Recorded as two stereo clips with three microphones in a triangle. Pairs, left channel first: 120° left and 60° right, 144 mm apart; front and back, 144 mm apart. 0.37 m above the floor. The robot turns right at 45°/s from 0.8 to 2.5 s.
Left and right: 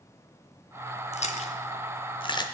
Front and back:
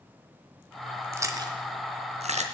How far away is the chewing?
About 0.9 m.